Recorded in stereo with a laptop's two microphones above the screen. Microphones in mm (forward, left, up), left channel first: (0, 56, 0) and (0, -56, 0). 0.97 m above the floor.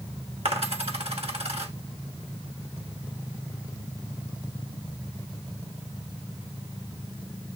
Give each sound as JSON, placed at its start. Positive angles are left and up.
{"t": 0.5, "sound": "a dropped coin", "side_deg": -65, "distance_m": 1.2}